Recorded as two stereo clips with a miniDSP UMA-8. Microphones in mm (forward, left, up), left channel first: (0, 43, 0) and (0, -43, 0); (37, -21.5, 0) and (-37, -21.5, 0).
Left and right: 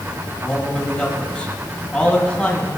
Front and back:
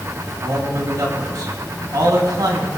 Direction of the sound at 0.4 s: 165° left.